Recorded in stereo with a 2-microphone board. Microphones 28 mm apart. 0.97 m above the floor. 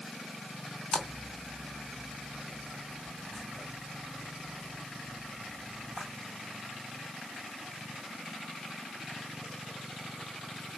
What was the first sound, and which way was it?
A splash, centre (ahead or behind).